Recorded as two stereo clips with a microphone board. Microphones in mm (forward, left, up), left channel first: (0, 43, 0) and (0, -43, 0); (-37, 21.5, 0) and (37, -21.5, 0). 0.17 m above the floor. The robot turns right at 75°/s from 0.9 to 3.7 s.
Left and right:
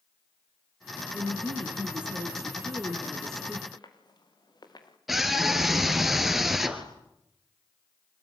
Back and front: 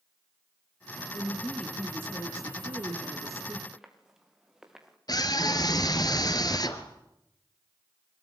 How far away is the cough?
No cough in this recording.